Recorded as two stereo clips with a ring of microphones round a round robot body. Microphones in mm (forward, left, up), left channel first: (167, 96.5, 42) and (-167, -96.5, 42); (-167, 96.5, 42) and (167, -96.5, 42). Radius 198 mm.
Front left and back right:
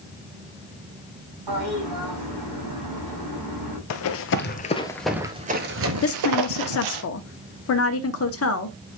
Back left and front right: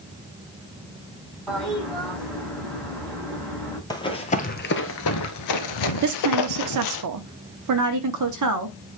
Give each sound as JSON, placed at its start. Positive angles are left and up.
{"t": 1.5, "sound": "a toilet flushing", "azimuth_deg": -120, "distance_m": 5.5}
{"t": 3.9, "sound": "running footsteps", "azimuth_deg": 70, "distance_m": 0.9}
{"t": 6.0, "sound": "a woman speaking", "azimuth_deg": -10, "distance_m": 0.8}